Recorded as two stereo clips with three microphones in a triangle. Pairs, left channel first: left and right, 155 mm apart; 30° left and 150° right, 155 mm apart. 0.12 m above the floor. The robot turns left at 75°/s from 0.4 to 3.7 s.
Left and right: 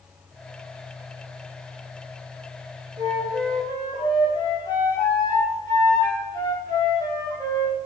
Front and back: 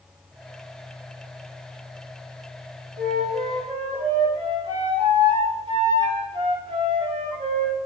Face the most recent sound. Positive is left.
turn(degrees=155)